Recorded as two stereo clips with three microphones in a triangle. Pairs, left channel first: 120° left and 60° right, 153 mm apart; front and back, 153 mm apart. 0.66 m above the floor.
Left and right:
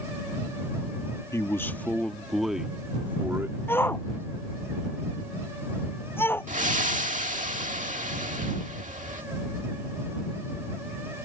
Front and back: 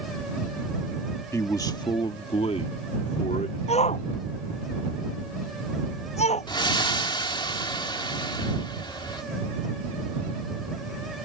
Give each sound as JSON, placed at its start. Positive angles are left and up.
{"t": 1.3, "sound": "a man speaking", "azimuth_deg": 60}
{"t": 3.7, "sound": "a shout", "azimuth_deg": 45}
{"t": 6.5, "sound": "breathing", "azimuth_deg": -50}